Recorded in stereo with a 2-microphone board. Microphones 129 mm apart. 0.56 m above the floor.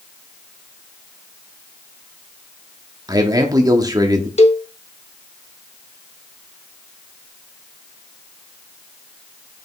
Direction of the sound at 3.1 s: 30° right (ahead or behind).